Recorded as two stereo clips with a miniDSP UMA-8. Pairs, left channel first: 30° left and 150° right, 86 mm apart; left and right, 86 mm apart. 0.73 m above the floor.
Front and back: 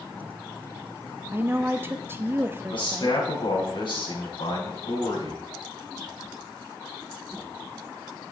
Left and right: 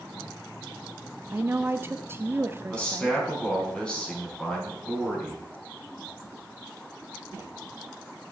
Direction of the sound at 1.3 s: 120° right.